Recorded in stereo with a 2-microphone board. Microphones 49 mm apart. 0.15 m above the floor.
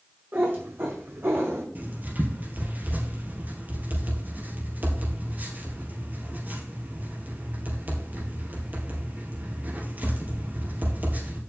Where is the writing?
35° right (ahead or behind), 2.5 m.